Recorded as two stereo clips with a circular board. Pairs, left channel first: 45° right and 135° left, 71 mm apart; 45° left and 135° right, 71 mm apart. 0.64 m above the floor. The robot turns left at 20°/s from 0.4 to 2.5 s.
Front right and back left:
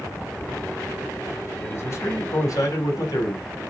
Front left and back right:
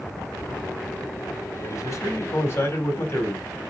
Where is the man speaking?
10° left, 4 m; by 3.5 s 10° right, 4 m.